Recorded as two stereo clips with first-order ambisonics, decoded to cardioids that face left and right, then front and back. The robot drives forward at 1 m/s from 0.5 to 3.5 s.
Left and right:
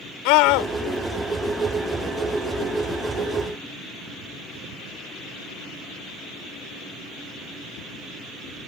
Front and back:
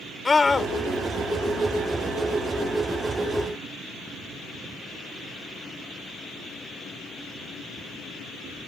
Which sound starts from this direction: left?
A scream, at 0.2 s.